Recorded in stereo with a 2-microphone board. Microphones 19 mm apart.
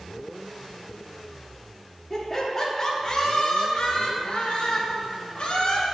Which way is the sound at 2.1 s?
5° left (ahead or behind).